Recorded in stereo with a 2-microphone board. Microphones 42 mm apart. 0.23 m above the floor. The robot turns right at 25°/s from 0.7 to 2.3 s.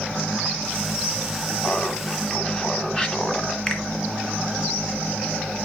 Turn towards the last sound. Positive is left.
turn(degrees=15)  # may be behind; listen again after turning